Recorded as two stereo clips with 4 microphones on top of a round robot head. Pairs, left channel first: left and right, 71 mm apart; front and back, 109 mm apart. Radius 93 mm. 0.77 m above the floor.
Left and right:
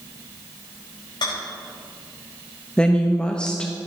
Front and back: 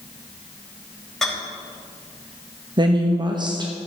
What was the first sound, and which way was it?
A rattle, 85° left.